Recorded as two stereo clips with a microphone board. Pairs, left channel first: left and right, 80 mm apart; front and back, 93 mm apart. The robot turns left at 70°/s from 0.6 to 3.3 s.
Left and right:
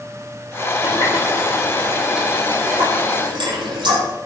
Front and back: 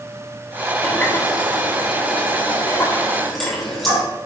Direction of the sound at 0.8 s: 85° left.